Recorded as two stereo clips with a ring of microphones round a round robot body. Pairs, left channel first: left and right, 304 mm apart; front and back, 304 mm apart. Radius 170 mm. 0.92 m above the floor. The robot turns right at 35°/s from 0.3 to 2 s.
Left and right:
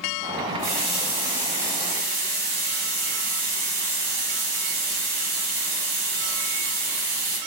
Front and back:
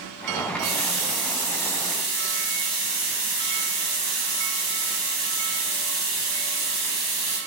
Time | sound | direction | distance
0.6 | a running tap | 170° left | 1.9 m